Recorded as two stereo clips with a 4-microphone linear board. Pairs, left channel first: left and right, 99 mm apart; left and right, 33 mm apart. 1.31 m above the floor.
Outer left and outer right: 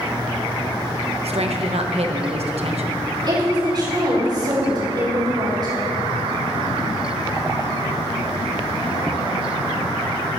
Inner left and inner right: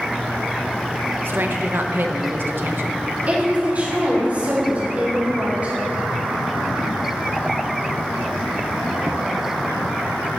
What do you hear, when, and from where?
1.2 s a woman speaking: 75° right (ahead or behind), 1.0 m
3.3 s a woman speaking: 45° right (ahead or behind), 4.5 m